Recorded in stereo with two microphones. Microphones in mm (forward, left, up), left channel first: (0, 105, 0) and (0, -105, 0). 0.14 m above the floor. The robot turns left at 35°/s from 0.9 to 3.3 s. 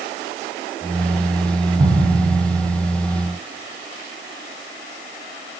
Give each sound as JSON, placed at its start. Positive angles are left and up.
{"t": 1.8, "sound": "an explosion", "side_deg": -30, "distance_m": 3.5}